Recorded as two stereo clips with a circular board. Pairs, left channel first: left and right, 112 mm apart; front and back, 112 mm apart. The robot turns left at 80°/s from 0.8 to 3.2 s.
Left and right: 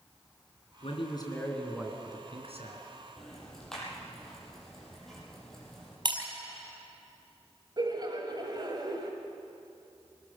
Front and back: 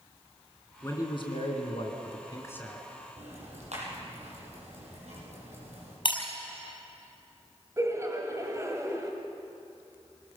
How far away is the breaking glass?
About 4.5 m.